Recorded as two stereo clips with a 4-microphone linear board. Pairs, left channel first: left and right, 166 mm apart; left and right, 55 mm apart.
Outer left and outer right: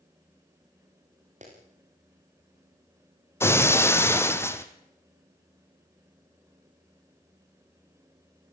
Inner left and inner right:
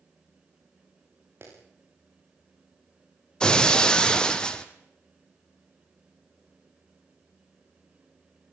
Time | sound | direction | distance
1.4 | a clap | 50° right (ahead or behind) | 8.5 m
3.4 | breaking glass | 15° left (ahead or behind) | 1.5 m